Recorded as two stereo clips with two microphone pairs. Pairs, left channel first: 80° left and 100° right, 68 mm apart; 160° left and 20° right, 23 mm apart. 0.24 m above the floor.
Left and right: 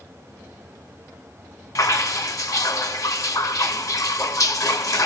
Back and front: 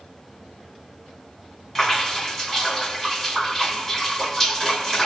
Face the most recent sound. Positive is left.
turn(degrees=80)